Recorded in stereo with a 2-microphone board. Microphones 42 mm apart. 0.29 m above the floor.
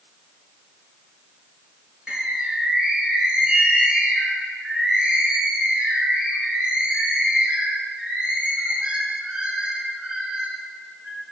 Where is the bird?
25° right (ahead or behind), 4 m.